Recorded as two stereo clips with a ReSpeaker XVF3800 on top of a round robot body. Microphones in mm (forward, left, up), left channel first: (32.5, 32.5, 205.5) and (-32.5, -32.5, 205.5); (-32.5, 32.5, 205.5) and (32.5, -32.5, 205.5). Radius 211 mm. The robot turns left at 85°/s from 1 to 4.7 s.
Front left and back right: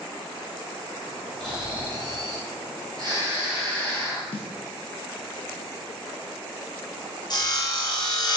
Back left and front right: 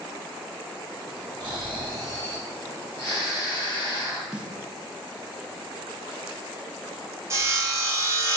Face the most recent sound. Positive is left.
turn(degrees=10)